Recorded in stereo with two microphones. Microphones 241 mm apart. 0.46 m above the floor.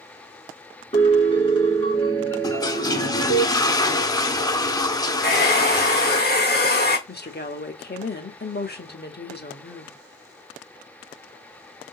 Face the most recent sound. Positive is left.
turn(degrees=40)  # may be behind; listen again after turning